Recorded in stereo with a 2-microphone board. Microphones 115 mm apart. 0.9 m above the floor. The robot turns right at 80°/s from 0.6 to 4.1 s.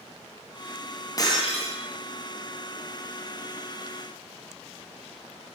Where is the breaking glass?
30° left, 4 m; by 1.8 s 80° left, 4 m.